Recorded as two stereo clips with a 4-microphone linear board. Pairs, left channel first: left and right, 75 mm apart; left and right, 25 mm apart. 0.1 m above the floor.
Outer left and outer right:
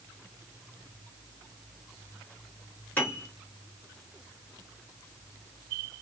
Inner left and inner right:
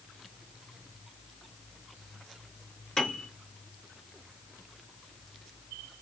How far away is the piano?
About 1.6 m.